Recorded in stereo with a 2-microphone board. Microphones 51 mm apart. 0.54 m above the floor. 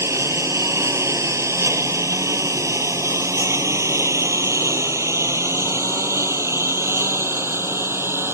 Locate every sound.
0.0 s a lawn mower: 70° right (ahead or behind); by 8.3 s 55° right (ahead or behind)